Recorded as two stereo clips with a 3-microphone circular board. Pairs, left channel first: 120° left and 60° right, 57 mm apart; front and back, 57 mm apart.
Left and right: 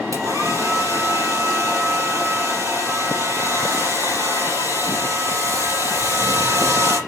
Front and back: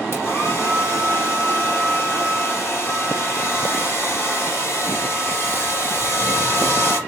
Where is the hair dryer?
40° right, 4 m.